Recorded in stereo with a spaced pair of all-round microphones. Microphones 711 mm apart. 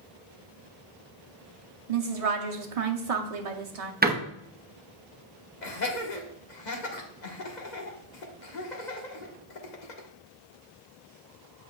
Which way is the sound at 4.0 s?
15° right (ahead or behind).